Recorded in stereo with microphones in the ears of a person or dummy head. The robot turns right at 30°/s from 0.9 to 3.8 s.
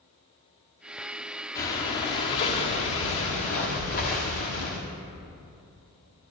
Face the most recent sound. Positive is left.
turn(degrees=105)